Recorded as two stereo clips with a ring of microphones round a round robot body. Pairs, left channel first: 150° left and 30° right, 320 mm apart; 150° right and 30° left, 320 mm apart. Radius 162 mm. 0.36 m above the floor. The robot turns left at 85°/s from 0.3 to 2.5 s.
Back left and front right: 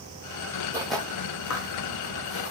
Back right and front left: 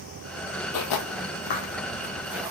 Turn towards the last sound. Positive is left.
turn(degrees=105)